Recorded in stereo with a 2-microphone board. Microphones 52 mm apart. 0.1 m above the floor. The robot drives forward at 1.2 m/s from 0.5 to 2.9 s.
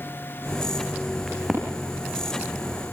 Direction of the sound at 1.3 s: Centre (ahead or behind).